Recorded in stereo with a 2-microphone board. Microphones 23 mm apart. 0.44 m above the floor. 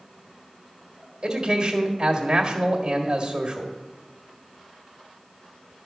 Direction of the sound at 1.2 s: 35° right (ahead or behind).